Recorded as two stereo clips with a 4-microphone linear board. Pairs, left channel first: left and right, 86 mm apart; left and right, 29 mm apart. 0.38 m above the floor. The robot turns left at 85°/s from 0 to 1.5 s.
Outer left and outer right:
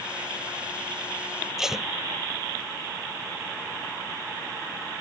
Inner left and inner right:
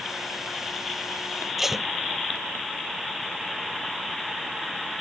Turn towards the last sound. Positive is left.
turn(degrees=-5)  # may be behind; listen again after turning